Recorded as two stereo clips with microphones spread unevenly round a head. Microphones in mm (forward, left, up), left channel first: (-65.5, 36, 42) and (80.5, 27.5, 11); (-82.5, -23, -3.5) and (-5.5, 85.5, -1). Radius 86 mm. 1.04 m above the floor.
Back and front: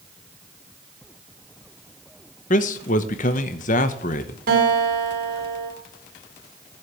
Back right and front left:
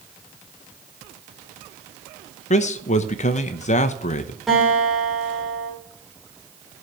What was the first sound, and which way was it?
A man speaking, 140° right.